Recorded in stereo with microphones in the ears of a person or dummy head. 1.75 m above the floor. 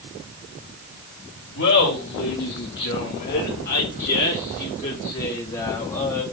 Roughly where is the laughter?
Left.